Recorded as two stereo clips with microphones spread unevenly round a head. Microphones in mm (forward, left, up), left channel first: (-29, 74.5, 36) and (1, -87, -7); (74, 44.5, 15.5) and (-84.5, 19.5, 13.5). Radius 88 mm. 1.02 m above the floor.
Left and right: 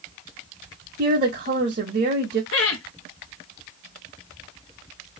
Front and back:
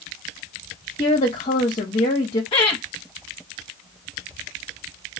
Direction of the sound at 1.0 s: 50° right.